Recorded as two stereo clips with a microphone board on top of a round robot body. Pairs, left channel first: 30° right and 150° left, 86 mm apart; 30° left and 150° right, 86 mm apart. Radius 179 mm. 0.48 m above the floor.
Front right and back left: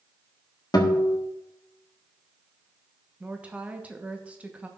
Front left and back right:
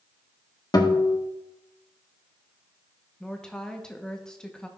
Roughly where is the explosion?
I don't hear an explosion.